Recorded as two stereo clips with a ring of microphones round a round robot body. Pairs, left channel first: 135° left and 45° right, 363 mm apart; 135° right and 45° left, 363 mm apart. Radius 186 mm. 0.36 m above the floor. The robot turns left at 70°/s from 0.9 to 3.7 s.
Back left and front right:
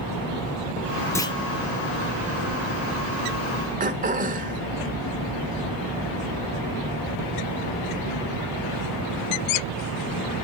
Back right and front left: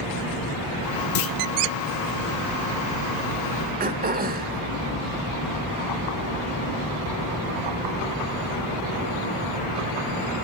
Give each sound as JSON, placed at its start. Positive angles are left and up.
{"t": 1.1, "sound": "a clunk", "azimuth_deg": -145, "distance_m": 0.6}
{"t": 3.8, "sound": "throat clearing", "azimuth_deg": 5, "distance_m": 1.2}